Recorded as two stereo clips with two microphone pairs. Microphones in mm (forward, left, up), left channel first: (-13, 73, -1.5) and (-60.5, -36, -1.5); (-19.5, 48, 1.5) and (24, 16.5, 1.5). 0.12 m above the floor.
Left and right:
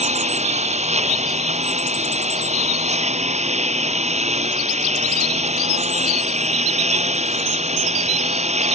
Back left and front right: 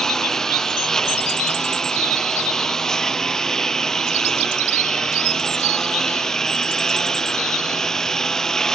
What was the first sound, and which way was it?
A lawn mower, 135° right.